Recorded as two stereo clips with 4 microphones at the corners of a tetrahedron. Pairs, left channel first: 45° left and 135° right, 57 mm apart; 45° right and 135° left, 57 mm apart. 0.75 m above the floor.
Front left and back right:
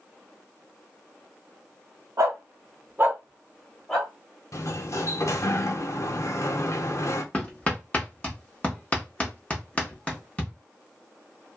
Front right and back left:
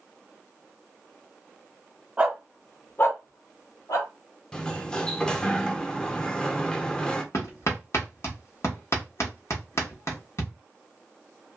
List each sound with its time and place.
2.2 s a dog barking: 155° right, 0.9 m; by 4.1 s 40° right, 1.4 m
4.5 s a sliding door: 30° left, 0.5 m
7.3 s hammering: 25° right, 1.2 m